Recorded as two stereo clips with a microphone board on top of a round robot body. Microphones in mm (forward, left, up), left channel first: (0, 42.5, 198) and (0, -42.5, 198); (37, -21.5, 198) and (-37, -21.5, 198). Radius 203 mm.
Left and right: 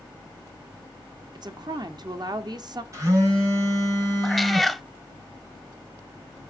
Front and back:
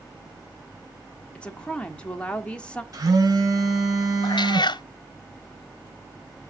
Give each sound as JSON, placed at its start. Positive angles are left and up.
{"t": 1.4, "sound": "a woman speaking", "azimuth_deg": -75, "distance_m": 1.8}
{"t": 2.9, "sound": "a phone buzzing", "azimuth_deg": -140, "distance_m": 4.5}
{"t": 4.2, "sound": "a cat meowing", "azimuth_deg": 0, "distance_m": 0.8}